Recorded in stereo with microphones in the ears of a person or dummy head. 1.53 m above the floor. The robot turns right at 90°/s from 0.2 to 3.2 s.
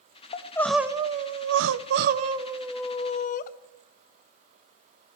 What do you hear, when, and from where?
0.3 s crying: 145° left, 0.7 m; by 3.5 s 45° left, 0.7 m